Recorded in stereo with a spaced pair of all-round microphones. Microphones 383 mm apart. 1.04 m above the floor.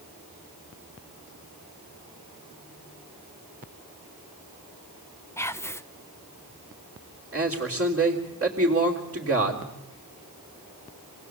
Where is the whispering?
5° left (ahead or behind), 0.8 m.